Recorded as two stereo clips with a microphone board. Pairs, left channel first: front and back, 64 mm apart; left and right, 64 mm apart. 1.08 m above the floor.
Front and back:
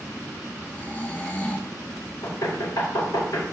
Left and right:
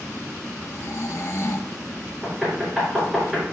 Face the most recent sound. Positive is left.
turn(degrees=-15)